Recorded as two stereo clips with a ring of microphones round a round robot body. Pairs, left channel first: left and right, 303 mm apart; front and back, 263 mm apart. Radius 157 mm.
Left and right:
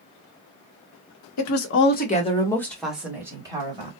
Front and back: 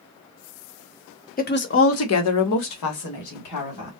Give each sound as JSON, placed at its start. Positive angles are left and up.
{"t": 1.4, "sound": "a woman speaking", "azimuth_deg": 60, "distance_m": 1.0}